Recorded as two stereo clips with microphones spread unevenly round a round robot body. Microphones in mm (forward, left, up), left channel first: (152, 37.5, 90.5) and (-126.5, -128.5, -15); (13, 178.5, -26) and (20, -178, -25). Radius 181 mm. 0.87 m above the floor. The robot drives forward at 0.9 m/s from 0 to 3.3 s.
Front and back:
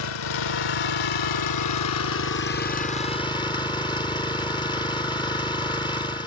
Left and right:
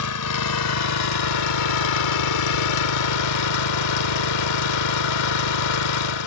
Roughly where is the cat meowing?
I don't hear a cat meowing.